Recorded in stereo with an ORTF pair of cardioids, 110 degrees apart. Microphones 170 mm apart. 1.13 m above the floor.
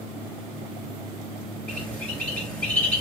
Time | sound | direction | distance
1.7 | a bird | 10° left | 2.5 m